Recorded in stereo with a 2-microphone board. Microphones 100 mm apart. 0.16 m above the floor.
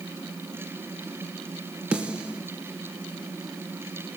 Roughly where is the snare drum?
Centre.